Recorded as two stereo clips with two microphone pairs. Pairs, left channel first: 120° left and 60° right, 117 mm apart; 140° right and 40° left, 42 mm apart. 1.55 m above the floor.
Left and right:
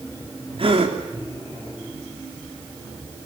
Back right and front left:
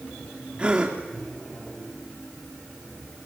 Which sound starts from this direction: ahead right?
A gasp, at 0.6 s.